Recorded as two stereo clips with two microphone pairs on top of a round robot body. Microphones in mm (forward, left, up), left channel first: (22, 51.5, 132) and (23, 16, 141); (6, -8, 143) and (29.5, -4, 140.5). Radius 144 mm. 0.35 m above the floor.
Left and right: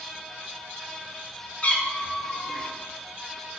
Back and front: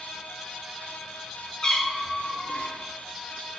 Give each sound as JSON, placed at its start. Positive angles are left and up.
{"t": 1.6, "sound": "a cat meowing", "azimuth_deg": 125, "distance_m": 0.7}